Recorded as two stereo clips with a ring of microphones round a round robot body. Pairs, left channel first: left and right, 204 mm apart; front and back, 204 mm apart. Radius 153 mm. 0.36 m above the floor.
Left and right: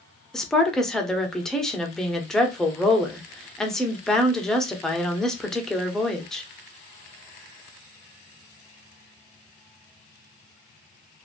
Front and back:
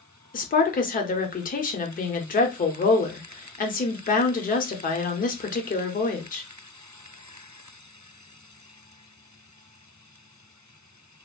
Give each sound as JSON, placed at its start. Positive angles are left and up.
{"t": 0.3, "sound": "a woman speaking", "azimuth_deg": 5, "distance_m": 1.0}